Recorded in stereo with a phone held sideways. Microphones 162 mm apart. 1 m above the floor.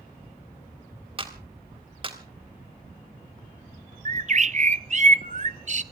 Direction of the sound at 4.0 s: 45° right (ahead or behind).